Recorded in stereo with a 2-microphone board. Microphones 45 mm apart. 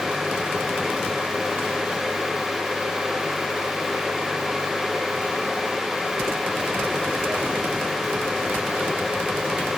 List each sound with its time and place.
Only background noise.